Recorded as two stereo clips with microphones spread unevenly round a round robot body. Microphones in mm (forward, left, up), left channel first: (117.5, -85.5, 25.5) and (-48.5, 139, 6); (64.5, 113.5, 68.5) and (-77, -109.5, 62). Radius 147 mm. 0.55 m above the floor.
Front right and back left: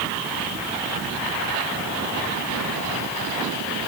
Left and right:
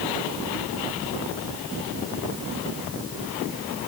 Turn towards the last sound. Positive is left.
No sound to turn to.